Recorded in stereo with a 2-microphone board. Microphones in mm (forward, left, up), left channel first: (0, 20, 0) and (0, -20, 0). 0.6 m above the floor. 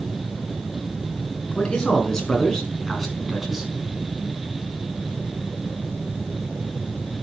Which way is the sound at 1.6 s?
20° left (ahead or behind).